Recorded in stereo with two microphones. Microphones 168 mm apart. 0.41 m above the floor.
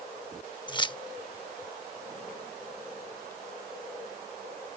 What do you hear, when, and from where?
0.7 s keys jangling: 30° left (ahead or behind)